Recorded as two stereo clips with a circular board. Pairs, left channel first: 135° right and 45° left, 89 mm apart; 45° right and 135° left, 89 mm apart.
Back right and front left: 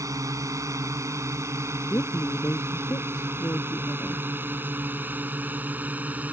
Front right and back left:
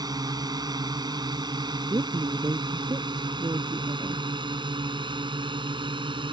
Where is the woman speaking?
175° left.